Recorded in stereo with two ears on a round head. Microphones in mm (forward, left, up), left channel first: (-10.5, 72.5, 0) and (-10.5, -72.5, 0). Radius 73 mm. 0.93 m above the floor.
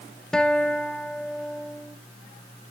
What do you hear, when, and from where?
0.3 s a guitar: 5° left (ahead or behind), 0.5 m